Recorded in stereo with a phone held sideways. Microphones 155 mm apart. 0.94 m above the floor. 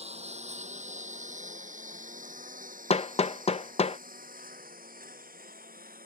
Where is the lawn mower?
45° right (ahead or behind); by 6.1 s 70° right (ahead or behind).